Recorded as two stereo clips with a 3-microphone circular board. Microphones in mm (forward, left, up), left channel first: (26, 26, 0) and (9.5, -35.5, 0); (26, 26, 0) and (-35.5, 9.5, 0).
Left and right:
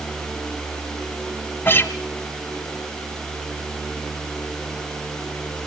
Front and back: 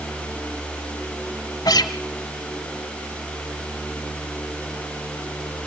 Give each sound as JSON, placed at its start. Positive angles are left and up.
{"t": 1.6, "sound": "a guitar", "azimuth_deg": 20, "distance_m": 0.8}